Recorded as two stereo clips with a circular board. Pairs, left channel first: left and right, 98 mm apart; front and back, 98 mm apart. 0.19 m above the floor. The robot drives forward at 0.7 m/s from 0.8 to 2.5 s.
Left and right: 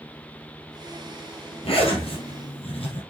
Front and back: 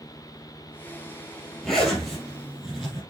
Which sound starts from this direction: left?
A zipper, at 1.6 s.